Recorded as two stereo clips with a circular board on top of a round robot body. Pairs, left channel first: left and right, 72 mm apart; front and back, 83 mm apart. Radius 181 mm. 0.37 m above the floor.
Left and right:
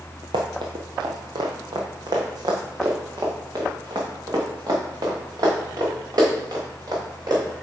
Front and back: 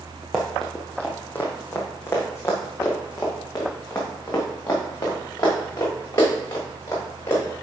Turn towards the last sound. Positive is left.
turn(degrees=-55)